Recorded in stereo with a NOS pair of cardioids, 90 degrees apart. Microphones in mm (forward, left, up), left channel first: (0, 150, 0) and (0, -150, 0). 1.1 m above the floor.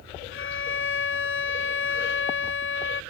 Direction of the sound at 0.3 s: 40° left.